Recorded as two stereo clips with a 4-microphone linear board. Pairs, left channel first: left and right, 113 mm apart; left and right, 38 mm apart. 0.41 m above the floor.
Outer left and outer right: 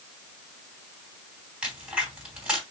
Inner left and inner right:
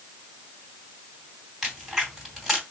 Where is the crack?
5° right (ahead or behind), 2.5 m.